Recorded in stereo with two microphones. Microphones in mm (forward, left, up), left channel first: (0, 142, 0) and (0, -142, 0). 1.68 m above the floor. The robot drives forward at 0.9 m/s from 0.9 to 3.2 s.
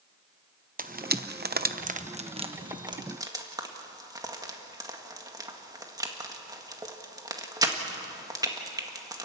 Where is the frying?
30° right (ahead or behind), 0.8 m; by 9.2 s 15° right (ahead or behind), 1.8 m.